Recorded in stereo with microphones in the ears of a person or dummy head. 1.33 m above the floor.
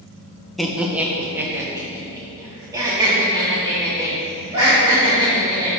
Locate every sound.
0.6 s laughter: 5° right (ahead or behind), 0.6 m; by 5.7 s 30° right (ahead or behind), 3 m